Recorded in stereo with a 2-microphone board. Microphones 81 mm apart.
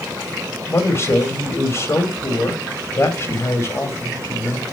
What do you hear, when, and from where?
0.7 s a man speaking: 35° left (ahead or behind), 2.5 m